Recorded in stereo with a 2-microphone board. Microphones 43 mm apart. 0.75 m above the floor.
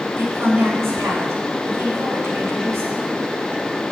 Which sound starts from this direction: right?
A woman speaking, at 0.2 s.